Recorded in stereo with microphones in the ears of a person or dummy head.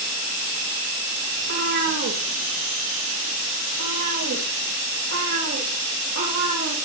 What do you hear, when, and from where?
1.4 s a cat meowing: 65° right (ahead or behind), 9 m; by 6.7 s 75° right (ahead or behind), 5.5 m